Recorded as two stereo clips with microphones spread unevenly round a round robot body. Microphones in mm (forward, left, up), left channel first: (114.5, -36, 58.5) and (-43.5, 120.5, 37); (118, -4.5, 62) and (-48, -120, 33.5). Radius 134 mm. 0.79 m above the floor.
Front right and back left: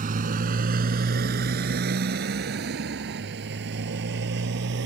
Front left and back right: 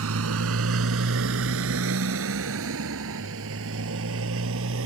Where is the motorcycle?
165° right; by 4.9 s 175° right.